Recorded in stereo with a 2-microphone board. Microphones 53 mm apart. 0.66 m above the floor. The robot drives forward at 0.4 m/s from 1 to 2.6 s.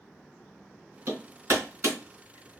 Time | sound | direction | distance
1.1 | hammering | 65° right (ahead or behind) | 3.5 m